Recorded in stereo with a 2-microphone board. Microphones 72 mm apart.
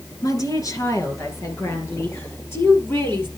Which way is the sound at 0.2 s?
55° left (ahead or behind).